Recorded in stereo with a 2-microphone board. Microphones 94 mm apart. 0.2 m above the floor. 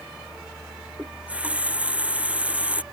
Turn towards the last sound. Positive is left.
turn(degrees=-15)  # may be behind; listen again after turning